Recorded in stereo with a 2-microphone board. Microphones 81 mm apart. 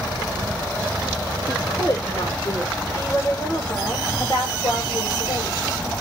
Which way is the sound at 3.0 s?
45° left (ahead or behind).